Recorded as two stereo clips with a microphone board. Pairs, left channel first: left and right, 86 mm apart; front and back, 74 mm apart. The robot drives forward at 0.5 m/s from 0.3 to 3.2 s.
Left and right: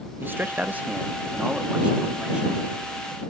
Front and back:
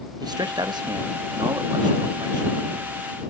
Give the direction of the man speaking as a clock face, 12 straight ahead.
5 o'clock.